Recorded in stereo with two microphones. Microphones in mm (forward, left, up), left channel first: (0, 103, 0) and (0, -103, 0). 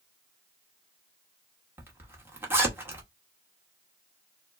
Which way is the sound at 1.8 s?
10° right (ahead or behind).